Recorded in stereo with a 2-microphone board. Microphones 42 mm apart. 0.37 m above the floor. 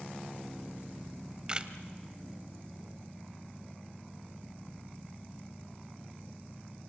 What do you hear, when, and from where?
1.1 s a camera shutter: 20° right (ahead or behind), 1.1 m